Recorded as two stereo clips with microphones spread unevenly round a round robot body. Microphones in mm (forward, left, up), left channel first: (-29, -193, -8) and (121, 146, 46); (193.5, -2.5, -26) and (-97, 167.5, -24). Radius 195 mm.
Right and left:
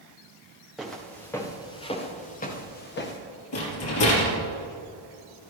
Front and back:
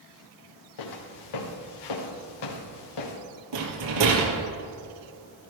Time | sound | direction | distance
0.8 | footsteps | 20° right | 3 m
3.5 | a rattle | 170° right | 3 m